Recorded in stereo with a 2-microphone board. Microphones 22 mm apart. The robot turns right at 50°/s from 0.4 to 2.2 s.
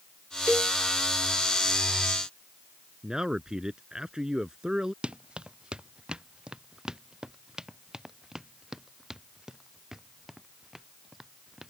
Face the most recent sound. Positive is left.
turn(degrees=-20)  # may be behind; listen again after turning